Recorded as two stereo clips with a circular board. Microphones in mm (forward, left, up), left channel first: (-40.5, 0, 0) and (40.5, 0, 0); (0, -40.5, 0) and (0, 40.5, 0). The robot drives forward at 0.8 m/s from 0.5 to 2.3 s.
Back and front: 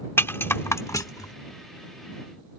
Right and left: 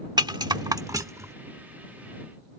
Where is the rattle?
120° left; by 1.3 s 145° left.